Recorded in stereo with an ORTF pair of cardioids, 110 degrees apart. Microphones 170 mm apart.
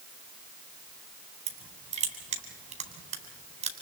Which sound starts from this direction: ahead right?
Crushing, at 1.5 s.